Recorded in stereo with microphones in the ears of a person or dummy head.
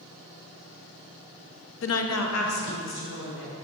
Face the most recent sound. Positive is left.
turn(degrees=60)  # may be behind; listen again after turning